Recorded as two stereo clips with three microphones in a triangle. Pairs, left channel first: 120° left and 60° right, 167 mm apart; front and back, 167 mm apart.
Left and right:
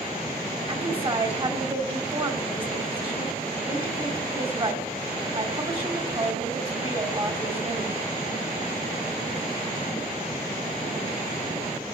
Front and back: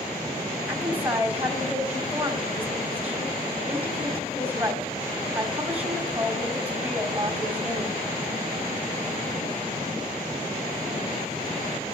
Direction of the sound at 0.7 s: 105° right.